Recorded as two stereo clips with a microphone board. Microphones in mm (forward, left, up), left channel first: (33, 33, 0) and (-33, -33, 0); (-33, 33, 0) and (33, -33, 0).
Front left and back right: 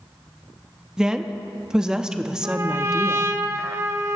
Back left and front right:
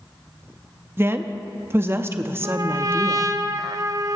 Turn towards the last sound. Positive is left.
turn(degrees=-85)